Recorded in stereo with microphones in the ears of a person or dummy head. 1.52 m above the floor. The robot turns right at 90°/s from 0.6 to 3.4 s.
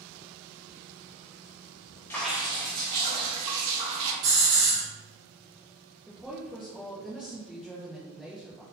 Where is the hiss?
65° right (ahead or behind), 1.2 m.